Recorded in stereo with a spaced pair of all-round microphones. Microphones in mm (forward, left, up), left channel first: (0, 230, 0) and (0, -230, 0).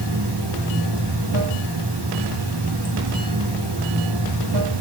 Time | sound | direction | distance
0.0 | running water | 60° right (ahead or behind) | 1.2 m